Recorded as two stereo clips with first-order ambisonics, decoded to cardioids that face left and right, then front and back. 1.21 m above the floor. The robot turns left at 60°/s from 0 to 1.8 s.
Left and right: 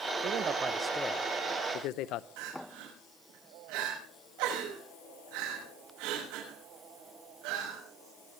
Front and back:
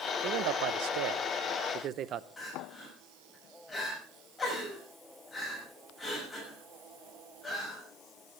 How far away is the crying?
About 6 m.